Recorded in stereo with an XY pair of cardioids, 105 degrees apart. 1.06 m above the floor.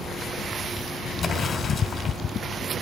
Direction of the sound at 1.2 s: 55° left.